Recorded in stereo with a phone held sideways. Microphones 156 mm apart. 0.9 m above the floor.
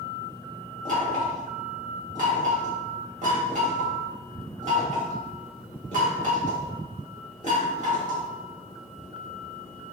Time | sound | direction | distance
0.8 | knocking | 55° right (ahead or behind) | 1.6 m